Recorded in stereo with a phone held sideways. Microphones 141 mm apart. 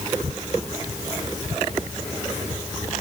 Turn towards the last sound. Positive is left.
No sound to turn to.